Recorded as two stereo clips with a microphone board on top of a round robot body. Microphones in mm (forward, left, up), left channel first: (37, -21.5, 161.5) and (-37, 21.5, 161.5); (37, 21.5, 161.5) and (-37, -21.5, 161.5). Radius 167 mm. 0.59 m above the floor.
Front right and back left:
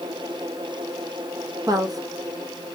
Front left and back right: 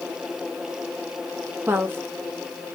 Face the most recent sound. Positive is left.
turn(degrees=155)